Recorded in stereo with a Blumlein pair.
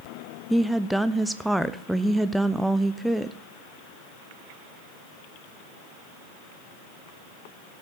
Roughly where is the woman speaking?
Ahead.